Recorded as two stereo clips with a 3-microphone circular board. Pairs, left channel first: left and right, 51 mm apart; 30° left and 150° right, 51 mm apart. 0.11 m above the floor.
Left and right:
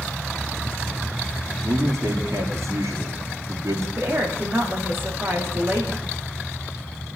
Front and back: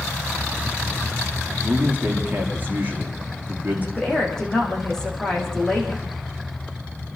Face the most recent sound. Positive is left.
turn(degrees=-50)